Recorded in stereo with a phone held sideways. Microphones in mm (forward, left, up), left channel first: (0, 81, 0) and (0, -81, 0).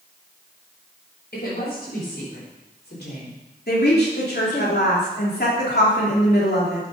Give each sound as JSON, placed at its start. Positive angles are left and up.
{"t": 1.3, "sound": "a woman speaking", "side_deg": 80, "distance_m": 6.0}
{"t": 3.7, "sound": "a woman speaking", "side_deg": 80, "distance_m": 3.0}